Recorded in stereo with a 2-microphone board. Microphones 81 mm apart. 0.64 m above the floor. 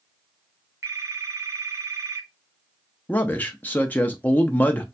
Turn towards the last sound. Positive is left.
turn(degrees=20)  # may be behind; listen again after turning